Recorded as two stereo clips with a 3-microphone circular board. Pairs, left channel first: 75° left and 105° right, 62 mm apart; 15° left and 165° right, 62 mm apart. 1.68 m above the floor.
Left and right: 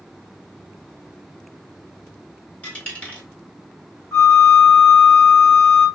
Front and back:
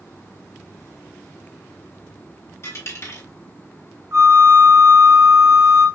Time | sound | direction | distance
2.6 | a dropped coin | 15° left | 1.8 m
4.1 | a flute | 160° left | 2.5 m